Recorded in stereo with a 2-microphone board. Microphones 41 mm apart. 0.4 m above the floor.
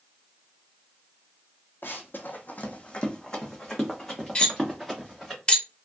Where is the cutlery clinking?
25° left (ahead or behind), 0.7 m.